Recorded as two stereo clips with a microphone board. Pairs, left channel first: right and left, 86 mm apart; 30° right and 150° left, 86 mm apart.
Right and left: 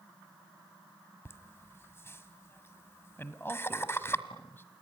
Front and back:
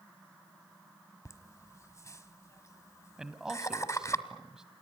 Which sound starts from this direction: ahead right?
Laughter, at 1.2 s.